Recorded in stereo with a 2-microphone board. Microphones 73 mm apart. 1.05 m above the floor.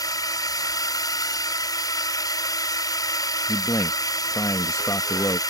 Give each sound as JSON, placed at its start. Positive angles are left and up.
{"t": 0.0, "sound": "a drone", "side_deg": 60}
{"t": 3.5, "sound": "a man speaking", "side_deg": 45}